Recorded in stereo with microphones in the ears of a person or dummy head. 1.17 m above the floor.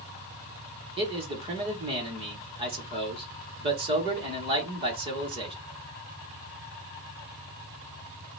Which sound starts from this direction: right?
A man speaking, at 1.0 s.